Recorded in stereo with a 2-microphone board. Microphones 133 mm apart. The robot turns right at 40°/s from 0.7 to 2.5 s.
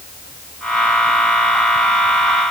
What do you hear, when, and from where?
Only background noise.